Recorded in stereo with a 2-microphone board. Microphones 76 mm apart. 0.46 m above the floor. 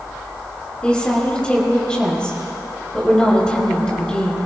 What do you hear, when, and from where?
0.8 s a woman speaking: 15° left (ahead or behind), 5 m